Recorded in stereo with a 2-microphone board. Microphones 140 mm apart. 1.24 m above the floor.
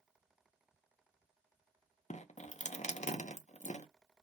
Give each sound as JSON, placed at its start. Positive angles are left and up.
{"t": 2.1, "sound": "dripping", "side_deg": 55, "distance_m": 0.5}